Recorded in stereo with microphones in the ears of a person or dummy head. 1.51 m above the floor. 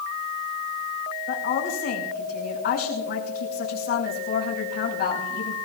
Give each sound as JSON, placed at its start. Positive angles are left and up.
{"t": 1.3, "sound": "a woman speaking", "side_deg": 50, "distance_m": 5.5}